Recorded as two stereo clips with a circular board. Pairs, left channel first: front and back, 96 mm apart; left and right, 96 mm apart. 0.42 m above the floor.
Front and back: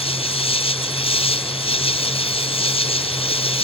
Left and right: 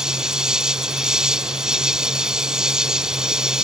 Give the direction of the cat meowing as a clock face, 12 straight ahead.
I don't hear a cat meowing.